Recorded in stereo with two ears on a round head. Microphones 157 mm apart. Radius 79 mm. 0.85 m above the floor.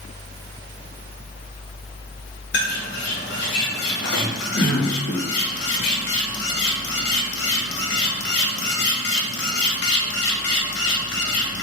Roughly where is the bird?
Left.